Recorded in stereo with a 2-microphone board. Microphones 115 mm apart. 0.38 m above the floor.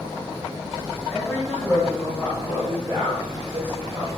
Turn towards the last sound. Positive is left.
turn(degrees=-45)  # may be behind; listen again after turning